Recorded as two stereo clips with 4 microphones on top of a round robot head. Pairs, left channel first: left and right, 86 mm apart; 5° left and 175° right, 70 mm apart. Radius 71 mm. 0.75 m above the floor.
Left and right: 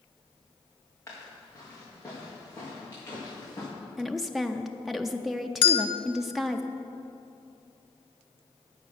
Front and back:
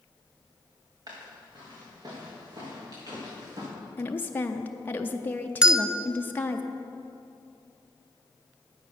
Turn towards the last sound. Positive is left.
turn(degrees=110)